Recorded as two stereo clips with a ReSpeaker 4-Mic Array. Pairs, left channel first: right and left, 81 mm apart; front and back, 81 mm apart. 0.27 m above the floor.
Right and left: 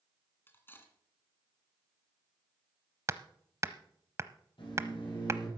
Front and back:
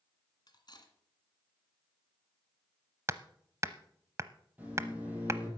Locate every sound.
0.5 s cutlery clinking: 25° right, 1.9 m
3.1 s hammering: 135° left, 0.6 m
4.6 s a microwave: 110° right, 7 m